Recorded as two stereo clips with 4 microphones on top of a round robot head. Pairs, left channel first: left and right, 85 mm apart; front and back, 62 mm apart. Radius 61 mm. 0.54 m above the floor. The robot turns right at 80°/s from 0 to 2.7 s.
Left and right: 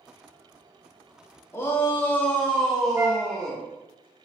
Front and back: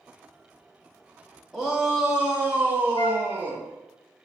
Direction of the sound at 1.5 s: 85° left.